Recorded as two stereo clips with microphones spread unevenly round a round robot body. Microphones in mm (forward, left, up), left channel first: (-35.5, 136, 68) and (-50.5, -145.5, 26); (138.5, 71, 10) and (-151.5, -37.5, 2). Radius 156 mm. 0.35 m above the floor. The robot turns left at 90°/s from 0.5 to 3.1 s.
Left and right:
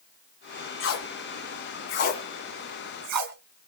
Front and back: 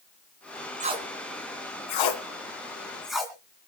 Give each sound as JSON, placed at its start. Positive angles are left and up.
{"t": 0.8, "sound": "tape being pulled", "azimuth_deg": 135, "distance_m": 3.0}